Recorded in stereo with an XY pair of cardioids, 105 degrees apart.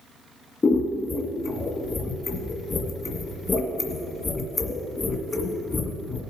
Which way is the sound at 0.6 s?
30° left.